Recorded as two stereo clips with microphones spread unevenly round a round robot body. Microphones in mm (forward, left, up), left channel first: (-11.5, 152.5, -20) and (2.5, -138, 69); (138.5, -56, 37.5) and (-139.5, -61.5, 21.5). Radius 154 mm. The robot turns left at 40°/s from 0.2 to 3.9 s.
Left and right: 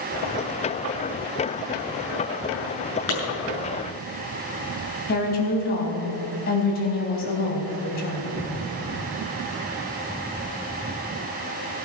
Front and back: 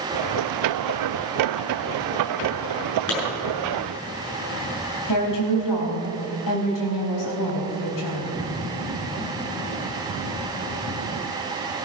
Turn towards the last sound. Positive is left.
turn(degrees=35)